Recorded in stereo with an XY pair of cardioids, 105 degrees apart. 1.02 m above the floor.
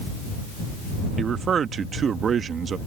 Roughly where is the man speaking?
Ahead right.